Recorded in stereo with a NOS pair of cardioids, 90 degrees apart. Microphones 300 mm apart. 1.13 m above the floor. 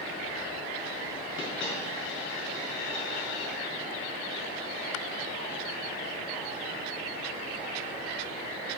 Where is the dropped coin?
40° left, 4.5 m.